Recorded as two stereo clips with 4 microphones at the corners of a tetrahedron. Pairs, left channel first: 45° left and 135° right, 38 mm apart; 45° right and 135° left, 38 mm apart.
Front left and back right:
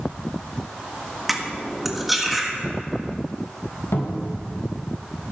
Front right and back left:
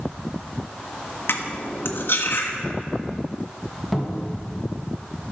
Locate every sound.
1.3 s cutlery clinking: 50° right, 1.5 m
3.9 s a cupboard door: 45° left, 2 m